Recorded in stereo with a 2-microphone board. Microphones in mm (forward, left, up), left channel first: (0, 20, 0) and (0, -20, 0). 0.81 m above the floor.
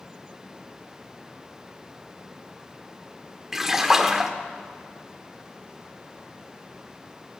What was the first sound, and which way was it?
A splash, 10° right (ahead or behind).